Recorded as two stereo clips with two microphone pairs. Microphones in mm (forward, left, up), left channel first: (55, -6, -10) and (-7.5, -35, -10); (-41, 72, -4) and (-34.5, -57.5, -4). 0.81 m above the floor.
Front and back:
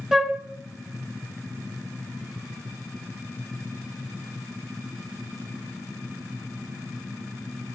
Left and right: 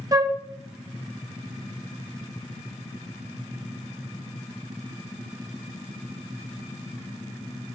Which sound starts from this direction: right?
A flute, at 0.1 s.